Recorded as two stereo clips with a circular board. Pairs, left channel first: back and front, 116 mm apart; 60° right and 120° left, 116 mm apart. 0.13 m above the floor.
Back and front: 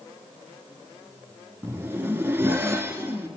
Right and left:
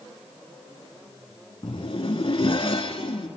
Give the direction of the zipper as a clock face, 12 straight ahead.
2 o'clock.